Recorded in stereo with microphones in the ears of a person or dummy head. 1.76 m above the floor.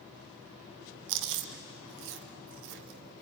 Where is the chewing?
60° right (ahead or behind), 1.0 m.